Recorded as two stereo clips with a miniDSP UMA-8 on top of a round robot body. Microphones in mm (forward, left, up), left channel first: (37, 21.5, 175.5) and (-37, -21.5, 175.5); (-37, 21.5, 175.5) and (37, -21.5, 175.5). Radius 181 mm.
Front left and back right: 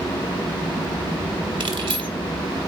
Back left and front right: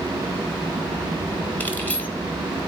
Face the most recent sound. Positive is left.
turn(degrees=-140)